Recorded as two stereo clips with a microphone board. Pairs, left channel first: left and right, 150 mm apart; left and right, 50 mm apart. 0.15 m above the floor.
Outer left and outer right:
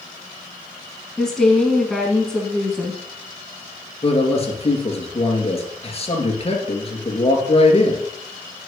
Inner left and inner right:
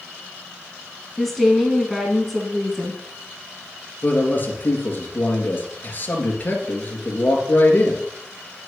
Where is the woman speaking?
5° left (ahead or behind), 1.4 m.